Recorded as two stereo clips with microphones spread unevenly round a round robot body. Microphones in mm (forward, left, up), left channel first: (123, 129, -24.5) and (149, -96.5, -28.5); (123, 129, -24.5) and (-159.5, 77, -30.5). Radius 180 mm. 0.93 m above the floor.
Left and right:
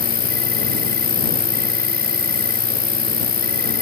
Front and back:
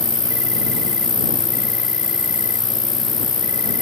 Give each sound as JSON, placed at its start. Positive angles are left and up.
{"t": 0.0, "sound": "an insect", "azimuth_deg": 75}